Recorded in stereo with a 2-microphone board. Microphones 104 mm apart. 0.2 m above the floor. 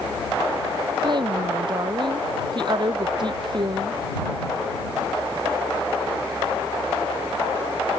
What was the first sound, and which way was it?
A woman speaking, 50° right (ahead or behind).